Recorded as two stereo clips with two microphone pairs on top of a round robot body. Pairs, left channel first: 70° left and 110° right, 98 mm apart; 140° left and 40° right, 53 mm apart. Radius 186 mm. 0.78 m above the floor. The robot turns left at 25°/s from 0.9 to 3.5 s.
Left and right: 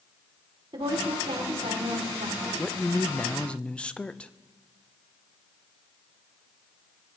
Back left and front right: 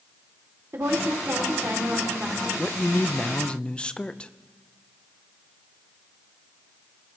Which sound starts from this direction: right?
A woman speaking, at 0.7 s.